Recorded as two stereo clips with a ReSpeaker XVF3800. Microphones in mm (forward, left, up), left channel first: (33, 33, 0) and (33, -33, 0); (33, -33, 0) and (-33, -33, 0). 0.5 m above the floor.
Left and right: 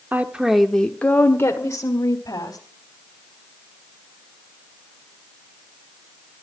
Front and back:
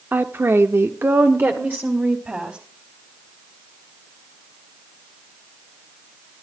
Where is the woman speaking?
135° right, 1.0 m; by 2.6 s 115° left, 2.5 m.